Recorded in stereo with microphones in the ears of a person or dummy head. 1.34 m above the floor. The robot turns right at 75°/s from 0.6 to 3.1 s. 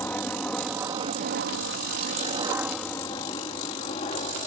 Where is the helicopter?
10° left (ahead or behind); by 4.5 s 35° left (ahead or behind).